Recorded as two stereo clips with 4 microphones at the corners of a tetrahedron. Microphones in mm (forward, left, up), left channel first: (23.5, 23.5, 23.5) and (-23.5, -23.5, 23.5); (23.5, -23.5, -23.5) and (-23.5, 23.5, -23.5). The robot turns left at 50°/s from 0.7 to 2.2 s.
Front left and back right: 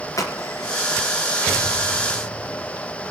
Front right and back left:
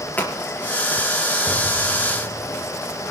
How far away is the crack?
About 4 m.